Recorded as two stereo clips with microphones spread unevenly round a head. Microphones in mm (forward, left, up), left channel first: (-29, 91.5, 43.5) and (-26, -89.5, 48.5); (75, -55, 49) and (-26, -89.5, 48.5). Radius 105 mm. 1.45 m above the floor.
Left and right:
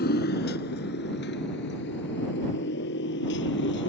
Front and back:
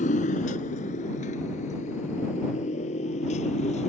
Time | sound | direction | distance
0.0 | a motorcycle | 45° left | ?